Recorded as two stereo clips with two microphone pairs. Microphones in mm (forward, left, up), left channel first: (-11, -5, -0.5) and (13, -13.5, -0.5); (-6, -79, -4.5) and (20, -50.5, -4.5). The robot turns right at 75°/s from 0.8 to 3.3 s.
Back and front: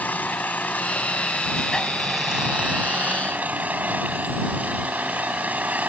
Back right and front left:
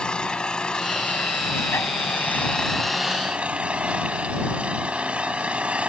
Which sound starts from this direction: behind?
An engine running, at 0.0 s.